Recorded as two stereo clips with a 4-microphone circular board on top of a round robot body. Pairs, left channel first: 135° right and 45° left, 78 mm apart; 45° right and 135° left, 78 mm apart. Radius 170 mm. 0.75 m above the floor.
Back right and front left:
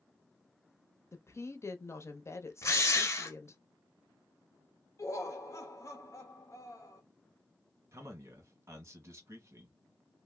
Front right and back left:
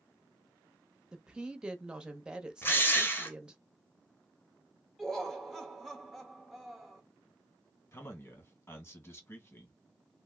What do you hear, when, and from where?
1.1 s a woman speaking: 155° right, 0.9 m
2.6 s a drill: 95° right, 1.2 m
5.0 s laughter: 130° right, 0.9 m
7.9 s a man speaking: straight ahead, 1.6 m